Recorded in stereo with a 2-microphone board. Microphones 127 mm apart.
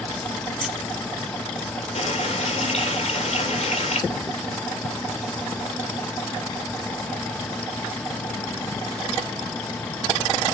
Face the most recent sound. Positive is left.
turn(degrees=55)  # may be behind; listen again after turning